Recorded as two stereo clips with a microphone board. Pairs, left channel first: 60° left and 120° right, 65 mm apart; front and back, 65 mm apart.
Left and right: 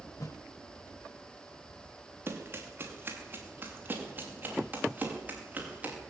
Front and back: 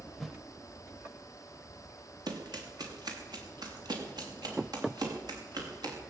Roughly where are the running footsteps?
Behind.